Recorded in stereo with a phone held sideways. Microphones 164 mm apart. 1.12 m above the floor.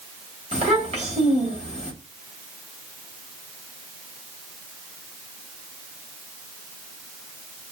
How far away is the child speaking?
About 1.3 m.